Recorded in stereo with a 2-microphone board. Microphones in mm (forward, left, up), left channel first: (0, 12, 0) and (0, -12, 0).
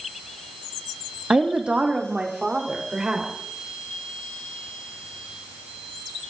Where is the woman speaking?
65° right (ahead or behind), 1.3 m; by 3.3 s 40° right (ahead or behind), 4 m.